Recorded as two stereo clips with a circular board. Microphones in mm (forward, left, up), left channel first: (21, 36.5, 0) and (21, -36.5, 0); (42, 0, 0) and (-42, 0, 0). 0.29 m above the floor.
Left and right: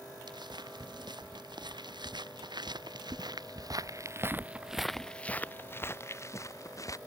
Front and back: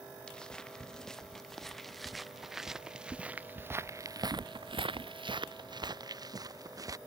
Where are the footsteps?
80° right; by 7.0 s 130° left.